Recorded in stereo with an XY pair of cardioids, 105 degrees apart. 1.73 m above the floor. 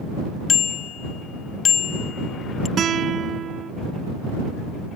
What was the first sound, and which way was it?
A bicycle bell, 55° left.